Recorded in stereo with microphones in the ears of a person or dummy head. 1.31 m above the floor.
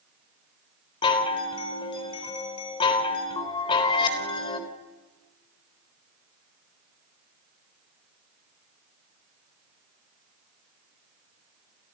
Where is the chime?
30° left (ahead or behind), 3.5 m.